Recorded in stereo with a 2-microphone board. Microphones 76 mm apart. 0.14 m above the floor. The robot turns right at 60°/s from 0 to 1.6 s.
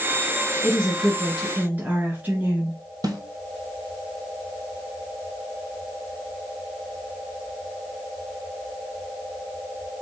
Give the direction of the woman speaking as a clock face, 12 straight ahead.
7 o'clock.